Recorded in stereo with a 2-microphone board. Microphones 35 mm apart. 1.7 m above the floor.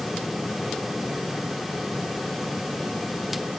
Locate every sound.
Only background noise.